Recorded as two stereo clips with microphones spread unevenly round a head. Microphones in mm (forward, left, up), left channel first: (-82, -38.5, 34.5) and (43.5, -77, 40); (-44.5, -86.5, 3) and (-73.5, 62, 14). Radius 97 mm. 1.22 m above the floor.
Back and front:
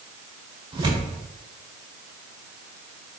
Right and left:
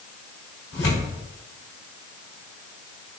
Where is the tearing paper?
70° right, 1.6 m.